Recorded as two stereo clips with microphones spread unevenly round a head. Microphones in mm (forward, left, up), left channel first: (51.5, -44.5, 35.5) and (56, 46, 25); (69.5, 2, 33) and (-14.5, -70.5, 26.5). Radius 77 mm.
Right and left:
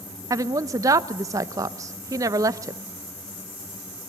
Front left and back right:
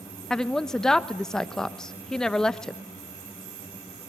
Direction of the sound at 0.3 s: 130° left.